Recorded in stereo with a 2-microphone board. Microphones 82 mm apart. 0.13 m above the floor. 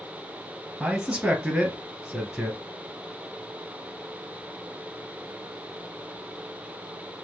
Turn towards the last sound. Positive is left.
turn(degrees=-10)  # may be behind; listen again after turning